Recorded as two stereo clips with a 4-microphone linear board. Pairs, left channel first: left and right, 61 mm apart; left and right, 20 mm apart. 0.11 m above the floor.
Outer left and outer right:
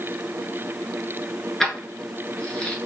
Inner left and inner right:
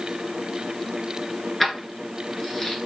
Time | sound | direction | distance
1.6 | keys jangling | 5° left (ahead or behind) | 1.0 m